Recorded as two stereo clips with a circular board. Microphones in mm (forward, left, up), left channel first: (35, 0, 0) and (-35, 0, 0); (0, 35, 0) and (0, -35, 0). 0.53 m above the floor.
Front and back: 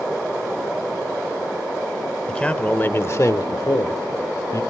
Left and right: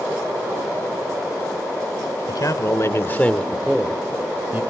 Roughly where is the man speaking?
Left.